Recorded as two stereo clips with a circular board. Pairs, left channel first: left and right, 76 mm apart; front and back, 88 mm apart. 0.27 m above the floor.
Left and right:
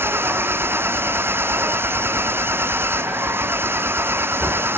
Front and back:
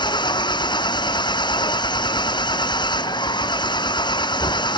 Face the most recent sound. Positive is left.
turn(degrees=-30)